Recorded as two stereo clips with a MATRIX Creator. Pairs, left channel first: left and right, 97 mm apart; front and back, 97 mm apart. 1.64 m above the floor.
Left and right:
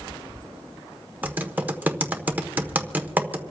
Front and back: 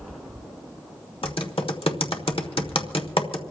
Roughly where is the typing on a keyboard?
Ahead.